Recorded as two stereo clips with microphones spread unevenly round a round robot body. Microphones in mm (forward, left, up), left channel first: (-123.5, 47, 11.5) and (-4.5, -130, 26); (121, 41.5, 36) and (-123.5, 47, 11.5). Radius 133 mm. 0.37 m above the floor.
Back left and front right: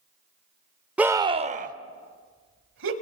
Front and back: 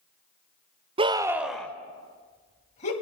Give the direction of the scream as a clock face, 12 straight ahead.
5 o'clock.